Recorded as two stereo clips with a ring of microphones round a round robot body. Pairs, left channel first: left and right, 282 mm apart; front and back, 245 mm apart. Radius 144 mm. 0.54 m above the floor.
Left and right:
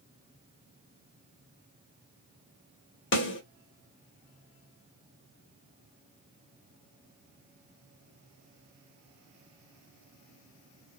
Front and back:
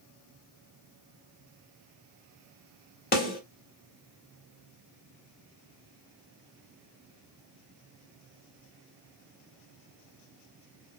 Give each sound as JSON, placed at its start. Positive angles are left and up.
{"t": 3.1, "sound": "a snare drum", "azimuth_deg": 45, "distance_m": 1.7}